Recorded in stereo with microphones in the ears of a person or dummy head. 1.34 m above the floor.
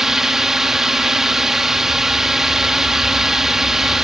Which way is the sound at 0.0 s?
Centre (ahead or behind).